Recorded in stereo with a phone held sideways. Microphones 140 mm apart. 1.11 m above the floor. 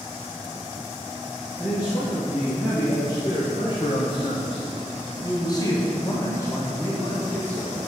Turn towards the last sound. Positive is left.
turn(degrees=15)  # may be behind; listen again after turning